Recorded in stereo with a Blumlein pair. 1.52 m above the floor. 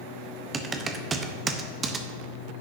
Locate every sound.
0.5 s typing on a keyboard: 20° right, 0.9 m